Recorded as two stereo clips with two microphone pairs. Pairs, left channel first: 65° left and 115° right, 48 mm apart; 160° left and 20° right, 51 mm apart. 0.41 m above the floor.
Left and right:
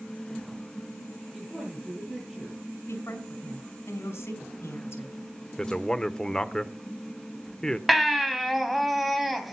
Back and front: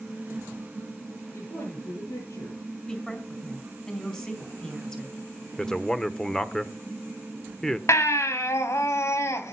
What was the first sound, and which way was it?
A woman speaking, 160° left.